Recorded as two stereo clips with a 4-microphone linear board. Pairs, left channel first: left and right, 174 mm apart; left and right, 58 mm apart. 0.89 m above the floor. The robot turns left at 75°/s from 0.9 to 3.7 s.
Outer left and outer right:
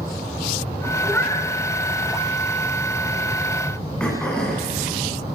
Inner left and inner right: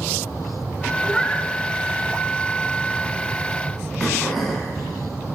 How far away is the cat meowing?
About 3.5 m.